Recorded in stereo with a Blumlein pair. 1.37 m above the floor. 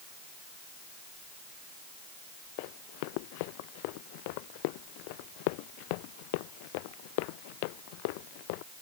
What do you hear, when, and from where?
2.6 s running footsteps: 45° left